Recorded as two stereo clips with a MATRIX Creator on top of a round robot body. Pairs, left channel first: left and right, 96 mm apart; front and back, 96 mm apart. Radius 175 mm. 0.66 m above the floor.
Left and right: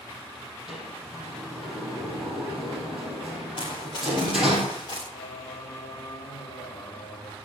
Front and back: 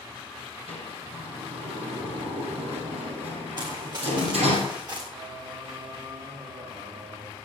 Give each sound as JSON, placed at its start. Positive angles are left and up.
{"t": 0.7, "sound": "a sliding door", "azimuth_deg": -175, "distance_m": 5.0}
{"t": 3.6, "sound": "running footsteps", "azimuth_deg": 135, "distance_m": 8.5}
{"t": 5.1, "sound": "singing", "azimuth_deg": 150, "distance_m": 2.5}